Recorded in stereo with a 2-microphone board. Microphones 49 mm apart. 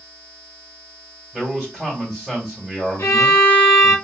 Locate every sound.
1.3 s a man speaking: 5° right (ahead or behind), 2.5 m
3.0 s a violin: 70° left (ahead or behind), 1.2 m